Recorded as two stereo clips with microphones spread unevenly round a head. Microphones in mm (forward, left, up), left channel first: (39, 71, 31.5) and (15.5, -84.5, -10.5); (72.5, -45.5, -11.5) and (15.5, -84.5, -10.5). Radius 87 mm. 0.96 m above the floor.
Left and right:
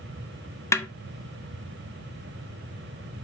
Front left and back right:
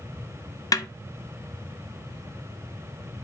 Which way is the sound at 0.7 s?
5° left.